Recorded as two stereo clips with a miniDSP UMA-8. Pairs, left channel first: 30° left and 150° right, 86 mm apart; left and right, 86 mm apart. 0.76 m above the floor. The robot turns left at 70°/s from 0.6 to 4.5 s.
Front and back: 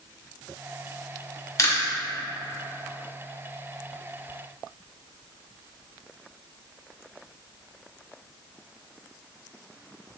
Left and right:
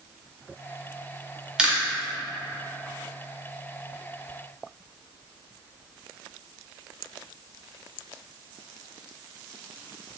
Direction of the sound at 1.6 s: 15° right.